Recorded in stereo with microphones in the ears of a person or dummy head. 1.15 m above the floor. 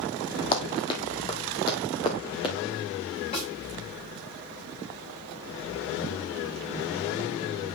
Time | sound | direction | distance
0.5 | running footsteps | 30° left (ahead or behind) | 2.0 m
3.3 | a snare drum | 35° left (ahead or behind) | 4.5 m